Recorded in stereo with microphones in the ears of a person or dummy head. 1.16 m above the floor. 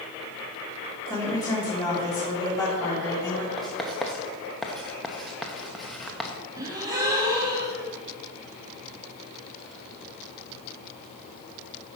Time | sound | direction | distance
1.1 | a woman speaking | 15° left (ahead or behind) | 2.5 m
3.6 | writing | 5° right (ahead or behind) | 0.9 m
6.6 | a gasp | 20° right (ahead or behind) | 1.4 m